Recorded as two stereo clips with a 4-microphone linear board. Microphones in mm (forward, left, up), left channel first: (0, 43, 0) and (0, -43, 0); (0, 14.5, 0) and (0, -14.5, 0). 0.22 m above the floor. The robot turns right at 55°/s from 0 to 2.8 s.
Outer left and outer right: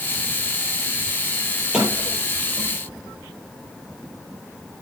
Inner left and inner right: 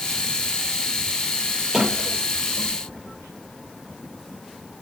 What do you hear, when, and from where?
1.7 s a sliding door: centre (ahead or behind), 7.5 m; by 2.8 s 55° right (ahead or behind), 7.5 m